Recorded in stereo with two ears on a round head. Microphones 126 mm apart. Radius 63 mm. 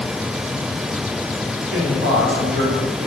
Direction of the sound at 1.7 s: 80° right.